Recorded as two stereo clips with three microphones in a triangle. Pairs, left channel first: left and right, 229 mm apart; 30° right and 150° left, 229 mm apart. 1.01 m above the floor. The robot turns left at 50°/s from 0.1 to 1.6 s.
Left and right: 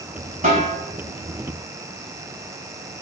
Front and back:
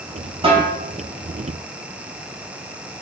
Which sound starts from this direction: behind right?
A snare drum, at 0.4 s.